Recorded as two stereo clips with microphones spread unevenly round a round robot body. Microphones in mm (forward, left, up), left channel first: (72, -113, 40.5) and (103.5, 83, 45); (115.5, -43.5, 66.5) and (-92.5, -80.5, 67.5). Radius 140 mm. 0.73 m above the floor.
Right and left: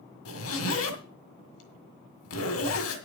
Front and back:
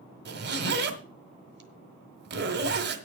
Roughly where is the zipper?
Behind right.